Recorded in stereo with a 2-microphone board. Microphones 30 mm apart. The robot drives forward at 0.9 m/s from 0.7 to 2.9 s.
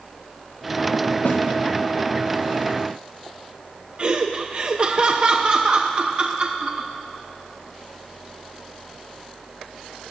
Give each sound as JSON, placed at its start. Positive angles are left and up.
{"t": 1.2, "sound": "a snare drum", "side_deg": 85, "distance_m": 1.7}
{"t": 4.0, "sound": "laughter", "side_deg": -35, "distance_m": 0.6}